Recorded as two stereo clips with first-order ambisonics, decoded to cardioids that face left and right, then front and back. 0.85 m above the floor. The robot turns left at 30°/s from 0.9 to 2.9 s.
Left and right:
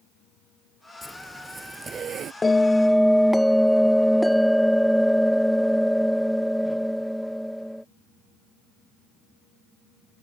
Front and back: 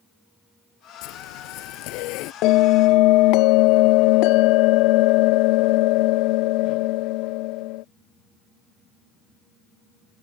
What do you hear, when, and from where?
1.0 s a zipper: 5° left; by 2.3 s 35° right
2.4 s a bell: 15° left; by 7.8 s straight ahead